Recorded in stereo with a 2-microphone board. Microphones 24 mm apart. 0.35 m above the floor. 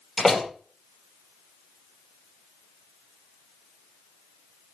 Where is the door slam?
10° left (ahead or behind), 5.5 m.